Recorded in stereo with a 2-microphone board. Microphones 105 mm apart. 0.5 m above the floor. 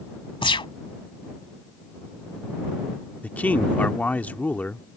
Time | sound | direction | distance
0.4 | a gunshot | 55° left (ahead or behind) | ?
3.2 | a man speaking | 15° left (ahead or behind) | ?